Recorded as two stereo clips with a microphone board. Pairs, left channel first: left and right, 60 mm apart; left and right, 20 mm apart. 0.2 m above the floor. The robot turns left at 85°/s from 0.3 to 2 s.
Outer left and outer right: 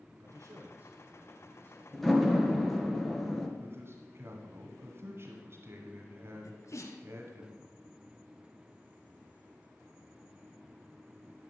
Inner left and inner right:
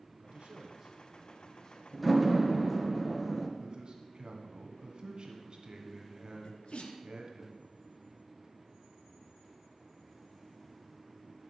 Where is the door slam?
10° left (ahead or behind), 1.9 m; by 3.5 s 5° left (ahead or behind), 1.9 m.